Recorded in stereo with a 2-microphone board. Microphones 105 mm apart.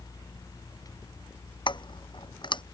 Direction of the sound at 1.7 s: 45° left (ahead or behind).